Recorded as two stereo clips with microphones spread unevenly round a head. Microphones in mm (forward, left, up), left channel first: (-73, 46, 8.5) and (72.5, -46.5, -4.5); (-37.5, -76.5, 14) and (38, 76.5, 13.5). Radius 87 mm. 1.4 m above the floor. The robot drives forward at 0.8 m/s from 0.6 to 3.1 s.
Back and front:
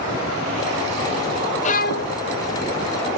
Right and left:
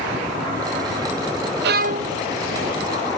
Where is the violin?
95° left; by 2.2 s 125° left.